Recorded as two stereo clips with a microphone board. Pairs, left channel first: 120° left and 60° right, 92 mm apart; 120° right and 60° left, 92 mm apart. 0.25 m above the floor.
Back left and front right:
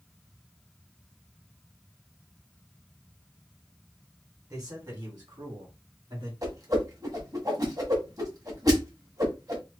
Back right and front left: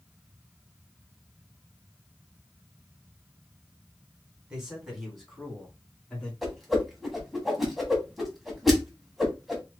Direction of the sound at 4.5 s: 20° right.